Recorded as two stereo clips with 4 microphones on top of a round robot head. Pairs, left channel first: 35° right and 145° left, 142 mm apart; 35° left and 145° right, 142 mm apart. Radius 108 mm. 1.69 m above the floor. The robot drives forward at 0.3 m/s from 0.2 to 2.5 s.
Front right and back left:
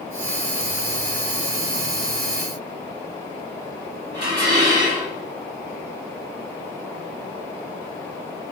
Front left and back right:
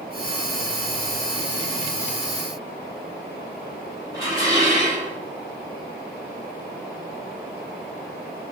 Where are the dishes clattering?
145° left, 5 m.